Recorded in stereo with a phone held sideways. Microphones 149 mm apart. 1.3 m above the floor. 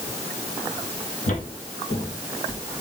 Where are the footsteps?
55° left (ahead or behind), 2.5 m; by 2.6 s 65° left (ahead or behind), 4 m.